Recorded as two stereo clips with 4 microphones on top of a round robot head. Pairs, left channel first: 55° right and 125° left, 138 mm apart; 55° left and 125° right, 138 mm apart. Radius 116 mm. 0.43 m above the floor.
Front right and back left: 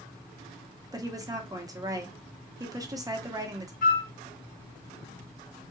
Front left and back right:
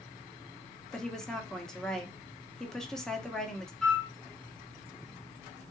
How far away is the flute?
About 0.9 m.